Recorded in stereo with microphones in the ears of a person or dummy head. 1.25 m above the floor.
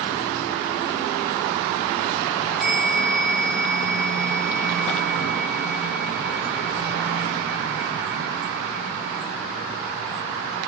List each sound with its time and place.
2.6 s a bell: 5° right (ahead or behind), 0.7 m